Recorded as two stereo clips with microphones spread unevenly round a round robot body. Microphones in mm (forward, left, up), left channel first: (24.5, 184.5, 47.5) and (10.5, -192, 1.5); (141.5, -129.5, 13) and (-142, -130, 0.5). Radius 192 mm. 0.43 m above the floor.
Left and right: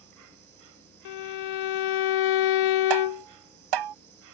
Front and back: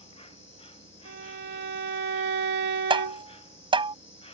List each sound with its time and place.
0.0 s an insect: 65° right
1.1 s a violin: 120° left
2.9 s tapping: 110° right